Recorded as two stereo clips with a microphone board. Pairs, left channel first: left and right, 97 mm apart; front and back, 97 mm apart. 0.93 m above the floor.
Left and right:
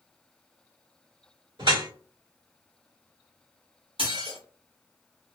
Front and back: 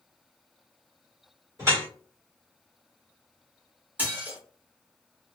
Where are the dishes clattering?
110° right, 1.7 m.